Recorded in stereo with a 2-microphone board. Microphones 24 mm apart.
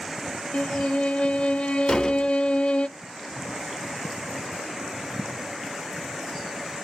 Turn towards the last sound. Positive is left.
turn(degrees=40)  # may be behind; listen again after turning